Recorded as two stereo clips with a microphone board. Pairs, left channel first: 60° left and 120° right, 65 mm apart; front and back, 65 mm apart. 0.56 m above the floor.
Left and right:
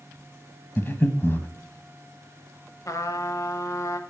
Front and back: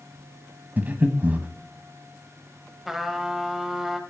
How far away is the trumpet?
About 1.0 m.